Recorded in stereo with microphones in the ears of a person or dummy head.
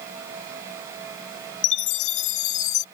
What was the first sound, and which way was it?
A chime, 45° left (ahead or behind).